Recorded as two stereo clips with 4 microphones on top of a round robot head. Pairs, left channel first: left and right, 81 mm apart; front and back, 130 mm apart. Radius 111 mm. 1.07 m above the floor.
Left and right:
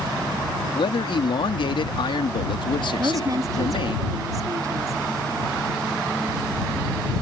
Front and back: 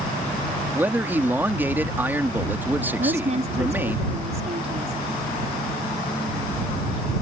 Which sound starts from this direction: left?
A man speaking, at 0.7 s.